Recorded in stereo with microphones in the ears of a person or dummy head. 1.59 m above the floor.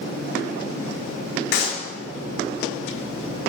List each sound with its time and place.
1.5 s a clap: 70° left (ahead or behind), 3.5 m